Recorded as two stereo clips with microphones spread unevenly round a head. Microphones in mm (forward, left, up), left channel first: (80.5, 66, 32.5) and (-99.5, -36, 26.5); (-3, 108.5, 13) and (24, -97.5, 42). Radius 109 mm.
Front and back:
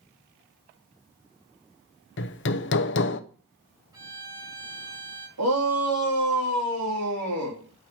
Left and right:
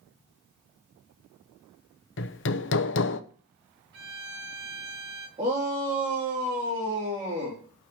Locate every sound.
2.2 s hammering: 60° left, 0.8 m
3.9 s a violin: 75° right, 2 m
5.4 s a shout: 150° right, 3.5 m